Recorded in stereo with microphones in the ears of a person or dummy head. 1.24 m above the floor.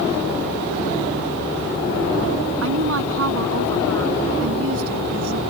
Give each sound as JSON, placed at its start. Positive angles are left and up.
{"t": 2.6, "sound": "a woman speaking", "side_deg": -75}